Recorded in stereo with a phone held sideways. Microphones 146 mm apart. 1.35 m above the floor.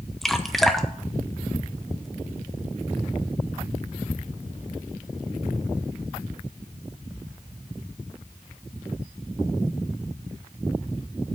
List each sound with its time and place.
0.2 s dripping: centre (ahead or behind), 0.8 m